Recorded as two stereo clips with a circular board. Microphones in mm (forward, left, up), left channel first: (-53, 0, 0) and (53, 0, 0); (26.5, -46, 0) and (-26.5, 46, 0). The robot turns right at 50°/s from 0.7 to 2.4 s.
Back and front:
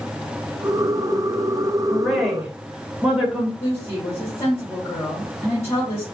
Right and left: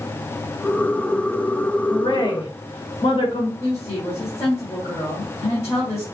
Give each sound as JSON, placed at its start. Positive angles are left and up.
{"t": 1.9, "sound": "a woman speaking", "azimuth_deg": -105, "distance_m": 1.8}
{"t": 3.6, "sound": "a woman speaking", "azimuth_deg": -115, "distance_m": 2.5}